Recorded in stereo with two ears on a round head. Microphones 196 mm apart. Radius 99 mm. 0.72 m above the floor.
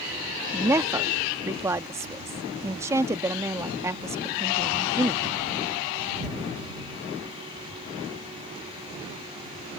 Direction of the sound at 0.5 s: 10° right (ahead or behind).